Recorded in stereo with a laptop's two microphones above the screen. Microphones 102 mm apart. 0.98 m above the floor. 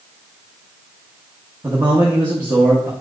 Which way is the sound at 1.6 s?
30° right (ahead or behind).